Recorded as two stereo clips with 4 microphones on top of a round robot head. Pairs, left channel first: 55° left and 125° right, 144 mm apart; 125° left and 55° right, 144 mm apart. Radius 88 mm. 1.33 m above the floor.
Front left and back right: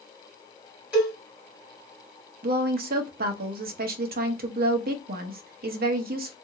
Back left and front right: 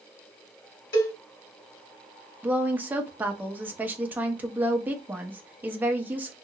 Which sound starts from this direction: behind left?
A cowbell, at 0.9 s.